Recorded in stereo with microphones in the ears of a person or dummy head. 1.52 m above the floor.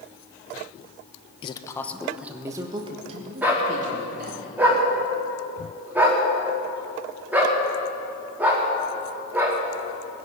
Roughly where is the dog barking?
Centre.